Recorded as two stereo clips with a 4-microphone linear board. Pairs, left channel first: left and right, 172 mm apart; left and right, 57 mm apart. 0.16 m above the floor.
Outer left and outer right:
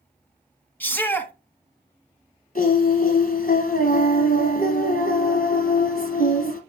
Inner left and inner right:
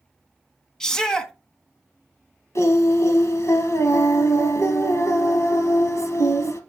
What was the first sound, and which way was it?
A shout, 10° left (ahead or behind).